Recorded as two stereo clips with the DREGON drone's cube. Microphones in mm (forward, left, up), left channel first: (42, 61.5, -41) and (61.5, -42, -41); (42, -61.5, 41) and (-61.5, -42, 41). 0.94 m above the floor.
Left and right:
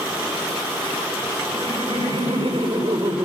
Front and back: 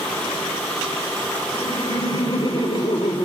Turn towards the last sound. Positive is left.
turn(degrees=-45)